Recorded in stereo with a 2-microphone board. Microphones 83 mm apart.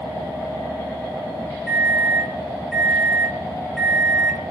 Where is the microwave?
Centre (ahead or behind), 0.6 m.